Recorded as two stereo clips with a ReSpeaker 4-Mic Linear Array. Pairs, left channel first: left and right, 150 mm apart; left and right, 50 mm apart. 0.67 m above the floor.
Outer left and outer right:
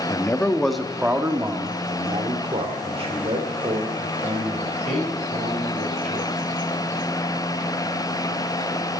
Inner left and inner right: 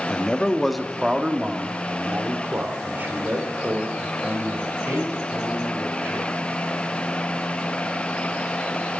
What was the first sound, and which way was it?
A man speaking, 25° left (ahead or behind).